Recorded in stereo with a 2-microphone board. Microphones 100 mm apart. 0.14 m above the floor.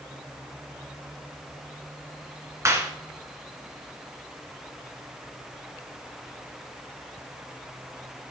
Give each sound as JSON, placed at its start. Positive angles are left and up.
{"t": 2.6, "sound": "a clap", "side_deg": -30, "distance_m": 1.6}